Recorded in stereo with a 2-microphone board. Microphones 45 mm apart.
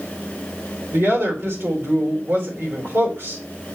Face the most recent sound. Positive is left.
turn(degrees=-70)  # may be behind; listen again after turning